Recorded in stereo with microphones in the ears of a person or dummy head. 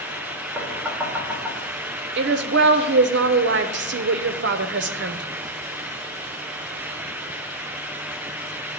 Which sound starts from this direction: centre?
Knocking, at 0.6 s.